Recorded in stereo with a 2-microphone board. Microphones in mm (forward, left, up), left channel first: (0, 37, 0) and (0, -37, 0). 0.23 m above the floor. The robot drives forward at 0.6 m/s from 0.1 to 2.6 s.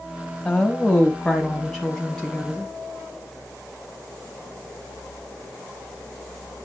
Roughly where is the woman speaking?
Centre.